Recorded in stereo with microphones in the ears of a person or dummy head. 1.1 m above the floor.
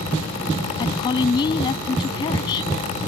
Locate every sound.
0.8 s a woman speaking: 25° left (ahead or behind)